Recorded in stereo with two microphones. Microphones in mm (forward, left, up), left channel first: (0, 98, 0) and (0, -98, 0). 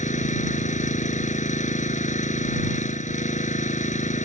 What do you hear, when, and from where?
0.0 s an engine running: 35° left (ahead or behind)